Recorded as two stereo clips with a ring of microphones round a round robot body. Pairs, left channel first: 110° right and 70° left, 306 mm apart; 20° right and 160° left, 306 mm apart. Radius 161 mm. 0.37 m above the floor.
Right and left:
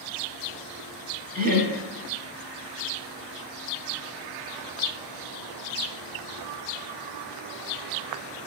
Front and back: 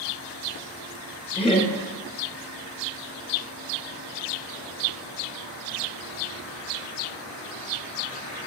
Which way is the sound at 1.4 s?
35° left.